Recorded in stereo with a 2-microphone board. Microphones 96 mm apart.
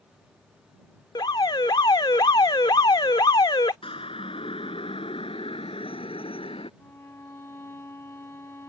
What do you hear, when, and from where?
1.1 s an alarm: 50° left (ahead or behind)
3.8 s a siren: 70° left (ahead or behind); by 6.7 s 75° left (ahead or behind)
6.8 s a violin: 25° left (ahead or behind)